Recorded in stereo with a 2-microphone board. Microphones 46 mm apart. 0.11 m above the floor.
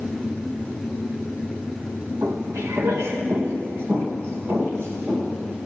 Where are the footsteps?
65° right (ahead or behind), 1.4 m; by 5.6 s 55° right (ahead or behind), 4.5 m.